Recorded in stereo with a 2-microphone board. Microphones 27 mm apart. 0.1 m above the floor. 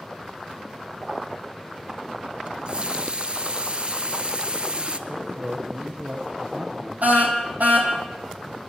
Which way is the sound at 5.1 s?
50° right (ahead or behind).